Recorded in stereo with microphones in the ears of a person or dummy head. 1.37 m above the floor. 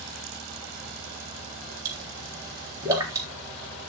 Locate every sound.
1.9 s a pop: 20° right (ahead or behind), 3.5 m